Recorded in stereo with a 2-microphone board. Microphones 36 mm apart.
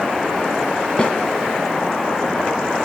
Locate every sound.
1.0 s a snare drum: 30° left (ahead or behind), 3 m